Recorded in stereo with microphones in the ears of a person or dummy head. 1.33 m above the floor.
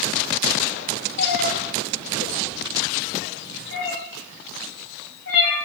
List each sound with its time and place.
1.2 s a cat meowing: 60° left (ahead or behind), 1.1 m; by 5.6 s 70° left (ahead or behind), 4 m